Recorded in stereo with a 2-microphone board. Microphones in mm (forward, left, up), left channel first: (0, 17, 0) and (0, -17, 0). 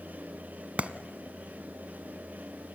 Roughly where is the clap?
Right.